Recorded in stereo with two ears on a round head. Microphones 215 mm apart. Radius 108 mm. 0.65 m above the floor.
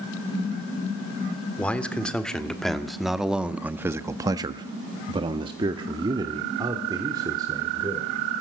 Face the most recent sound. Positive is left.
turn(degrees=-15)  # may be behind; listen again after turning